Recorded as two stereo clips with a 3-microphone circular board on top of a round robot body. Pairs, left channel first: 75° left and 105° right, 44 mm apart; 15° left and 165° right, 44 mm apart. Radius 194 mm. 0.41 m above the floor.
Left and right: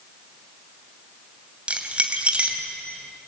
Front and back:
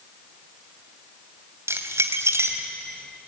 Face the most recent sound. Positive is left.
turn(degrees=-165)